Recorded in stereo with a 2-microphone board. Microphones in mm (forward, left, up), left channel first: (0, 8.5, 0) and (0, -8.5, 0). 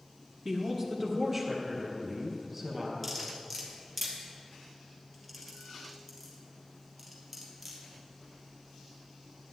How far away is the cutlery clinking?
About 2.5 m.